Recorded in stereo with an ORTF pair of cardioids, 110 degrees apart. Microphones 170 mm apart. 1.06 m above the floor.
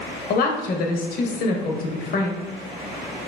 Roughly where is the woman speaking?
Ahead left.